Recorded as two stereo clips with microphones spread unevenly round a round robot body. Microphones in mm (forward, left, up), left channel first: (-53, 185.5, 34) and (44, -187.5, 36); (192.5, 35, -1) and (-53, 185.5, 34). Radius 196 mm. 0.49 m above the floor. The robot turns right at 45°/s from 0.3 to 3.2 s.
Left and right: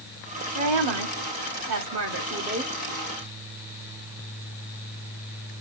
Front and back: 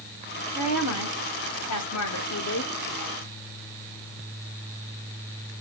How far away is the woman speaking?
About 1.9 m.